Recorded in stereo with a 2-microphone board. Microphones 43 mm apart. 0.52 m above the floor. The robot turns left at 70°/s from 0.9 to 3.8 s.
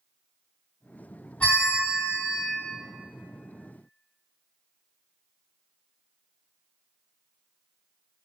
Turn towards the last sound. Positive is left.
turn(degrees=-95)